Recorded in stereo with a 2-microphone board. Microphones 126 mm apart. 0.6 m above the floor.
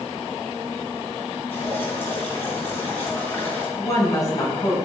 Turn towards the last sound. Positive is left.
turn(degrees=25)  # may be behind; listen again after turning